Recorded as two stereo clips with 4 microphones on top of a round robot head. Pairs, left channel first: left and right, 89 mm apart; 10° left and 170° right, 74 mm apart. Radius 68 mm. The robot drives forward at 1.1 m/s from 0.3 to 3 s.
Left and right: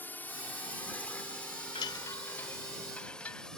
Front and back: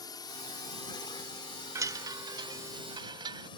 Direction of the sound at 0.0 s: 25° left.